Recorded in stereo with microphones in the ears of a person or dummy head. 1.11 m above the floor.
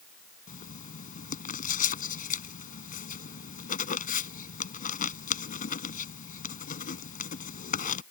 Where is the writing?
45° left (ahead or behind).